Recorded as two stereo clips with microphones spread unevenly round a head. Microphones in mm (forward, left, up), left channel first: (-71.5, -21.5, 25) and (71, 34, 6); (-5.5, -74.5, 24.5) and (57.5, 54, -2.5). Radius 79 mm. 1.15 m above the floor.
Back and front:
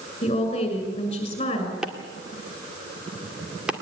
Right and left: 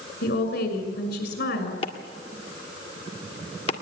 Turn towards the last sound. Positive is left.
turn(degrees=-65)